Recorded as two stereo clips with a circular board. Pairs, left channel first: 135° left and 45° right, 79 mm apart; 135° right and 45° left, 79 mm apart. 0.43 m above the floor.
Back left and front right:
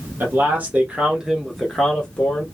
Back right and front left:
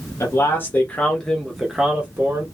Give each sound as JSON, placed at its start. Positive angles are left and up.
{"t": 0.2, "sound": "a man speaking", "azimuth_deg": -95, "distance_m": 1.1}